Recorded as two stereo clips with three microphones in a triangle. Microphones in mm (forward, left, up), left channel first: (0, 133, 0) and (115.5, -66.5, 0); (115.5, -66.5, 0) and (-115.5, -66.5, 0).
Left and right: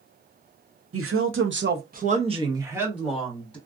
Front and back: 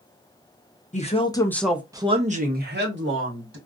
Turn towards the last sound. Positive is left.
turn(degrees=-155)